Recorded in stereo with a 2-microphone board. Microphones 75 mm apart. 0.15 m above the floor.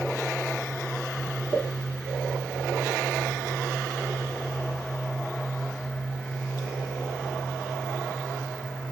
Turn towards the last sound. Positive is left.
turn(degrees=15)  # may be behind; listen again after turning